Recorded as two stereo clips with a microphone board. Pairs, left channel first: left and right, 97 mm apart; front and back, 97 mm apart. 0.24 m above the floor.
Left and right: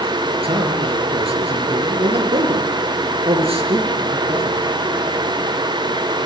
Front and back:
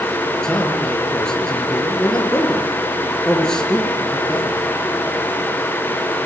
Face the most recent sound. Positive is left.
turn(degrees=-85)